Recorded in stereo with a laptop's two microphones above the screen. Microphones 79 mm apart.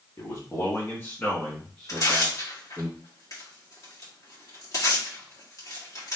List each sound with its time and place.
0.2 s a man speaking: 45° left (ahead or behind), 1.6 m; by 2.9 s 20° right (ahead or behind), 1.6 m
1.9 s tearing paper: 50° left (ahead or behind), 1.8 m